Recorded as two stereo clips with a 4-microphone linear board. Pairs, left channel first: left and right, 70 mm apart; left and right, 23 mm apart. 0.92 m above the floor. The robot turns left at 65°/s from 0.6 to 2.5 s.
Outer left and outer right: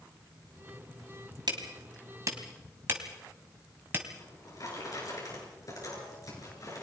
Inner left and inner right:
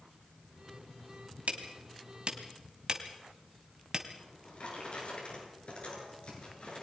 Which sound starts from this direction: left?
A drawer, at 4.2 s.